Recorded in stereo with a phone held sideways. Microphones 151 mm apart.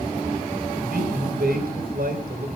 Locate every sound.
0.8 s a man speaking: 80° right, 5 m